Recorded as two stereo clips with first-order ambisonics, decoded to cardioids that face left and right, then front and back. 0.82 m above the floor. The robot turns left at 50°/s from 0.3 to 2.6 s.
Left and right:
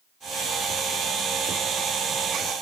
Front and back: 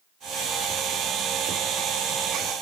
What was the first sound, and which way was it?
Only background noise.